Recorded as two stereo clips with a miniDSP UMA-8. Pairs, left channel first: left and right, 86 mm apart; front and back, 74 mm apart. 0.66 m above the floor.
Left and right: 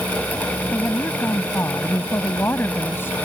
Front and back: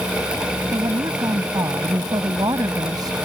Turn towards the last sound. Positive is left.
turn(degrees=155)